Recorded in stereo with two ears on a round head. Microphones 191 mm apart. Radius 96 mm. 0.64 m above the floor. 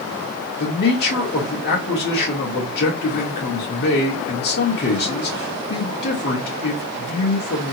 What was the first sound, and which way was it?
A man speaking, 45° left (ahead or behind).